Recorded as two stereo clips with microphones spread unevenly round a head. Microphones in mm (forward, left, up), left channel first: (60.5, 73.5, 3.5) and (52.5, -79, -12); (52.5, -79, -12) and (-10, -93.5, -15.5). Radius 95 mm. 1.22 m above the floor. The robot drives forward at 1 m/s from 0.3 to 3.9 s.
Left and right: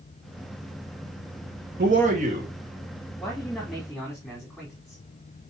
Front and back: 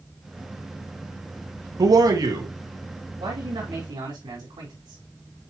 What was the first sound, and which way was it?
A man speaking, 145° right.